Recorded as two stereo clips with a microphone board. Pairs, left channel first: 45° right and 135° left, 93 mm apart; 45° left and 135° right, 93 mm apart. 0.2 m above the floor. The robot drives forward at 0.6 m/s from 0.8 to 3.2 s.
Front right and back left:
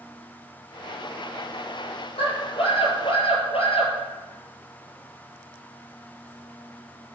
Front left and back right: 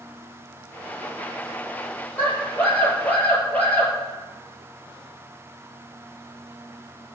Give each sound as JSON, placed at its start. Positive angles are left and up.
{"t": 2.2, "sound": "a scream", "azimuth_deg": -25, "distance_m": 4.0}